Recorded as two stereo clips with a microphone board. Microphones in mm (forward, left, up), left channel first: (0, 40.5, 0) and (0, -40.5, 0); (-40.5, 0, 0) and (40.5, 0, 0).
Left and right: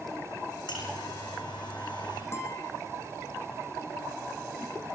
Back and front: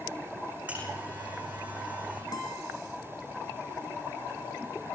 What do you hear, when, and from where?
0.7 s a buzzer: 75° left, 10 m
2.3 s a guitar: 145° left, 5 m